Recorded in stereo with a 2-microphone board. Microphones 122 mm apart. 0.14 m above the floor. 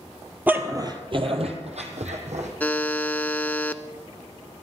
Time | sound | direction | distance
0.5 | a dog barking | 15° right (ahead or behind) | 1.3 m
2.6 | a buzzer | 15° left (ahead or behind) | 0.6 m